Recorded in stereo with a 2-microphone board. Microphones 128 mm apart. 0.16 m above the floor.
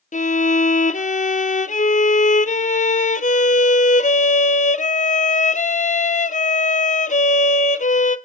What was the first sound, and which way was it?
A violin, 80° left.